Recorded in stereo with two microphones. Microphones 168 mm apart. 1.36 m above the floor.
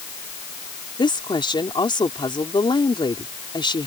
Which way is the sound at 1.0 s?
30° left (ahead or behind).